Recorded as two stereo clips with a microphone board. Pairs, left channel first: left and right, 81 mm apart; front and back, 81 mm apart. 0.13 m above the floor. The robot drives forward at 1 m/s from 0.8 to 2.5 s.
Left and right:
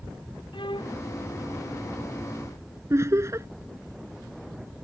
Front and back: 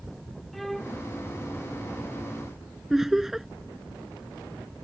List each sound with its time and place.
0.5 s a violin: 90° left
2.9 s laughter: 95° right